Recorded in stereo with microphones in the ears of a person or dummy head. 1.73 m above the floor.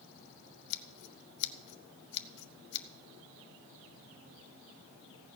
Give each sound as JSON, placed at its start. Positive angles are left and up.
{"t": 0.7, "sound": "scissors", "side_deg": 60, "distance_m": 0.8}